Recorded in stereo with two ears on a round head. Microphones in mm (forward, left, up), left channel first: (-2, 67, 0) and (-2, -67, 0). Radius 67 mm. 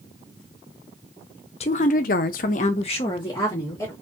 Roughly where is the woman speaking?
Left.